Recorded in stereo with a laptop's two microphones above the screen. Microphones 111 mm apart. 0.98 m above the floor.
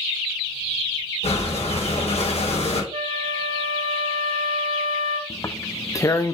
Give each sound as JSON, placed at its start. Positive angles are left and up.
{"t": 1.2, "sound": "breathing", "side_deg": 80, "distance_m": 4.0}
{"t": 2.9, "sound": "a flute", "side_deg": -70, "distance_m": 1.8}
{"t": 5.3, "sound": "tearing paper", "side_deg": 30, "distance_m": 0.7}